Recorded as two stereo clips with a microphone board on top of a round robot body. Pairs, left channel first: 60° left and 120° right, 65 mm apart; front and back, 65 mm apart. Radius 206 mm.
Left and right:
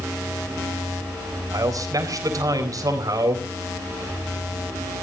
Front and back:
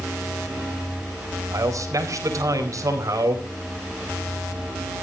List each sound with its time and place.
1.5 s a man speaking: 145° right, 4 m